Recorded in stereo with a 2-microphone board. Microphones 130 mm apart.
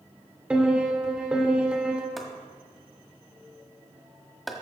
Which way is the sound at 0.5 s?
10° right (ahead or behind).